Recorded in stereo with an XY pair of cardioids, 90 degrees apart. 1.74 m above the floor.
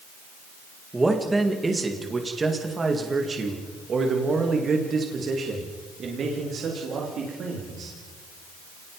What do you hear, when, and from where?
0.9 s a man speaking: 20° right, 3 m; by 8.0 s 70° right, 4.5 m